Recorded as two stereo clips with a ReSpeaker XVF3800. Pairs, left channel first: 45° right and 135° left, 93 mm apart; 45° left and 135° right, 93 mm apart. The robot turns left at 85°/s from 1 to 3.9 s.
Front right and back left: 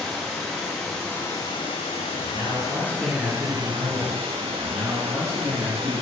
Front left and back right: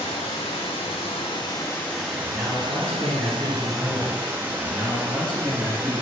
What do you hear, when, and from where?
0.0 s running water: 40° left, 0.7 m; by 6.0 s 155° left, 0.7 m
2.2 s a man speaking: 145° left, 1.2 m; by 4.2 s straight ahead, 1.2 m
4.5 s a man speaking: 140° left, 1.6 m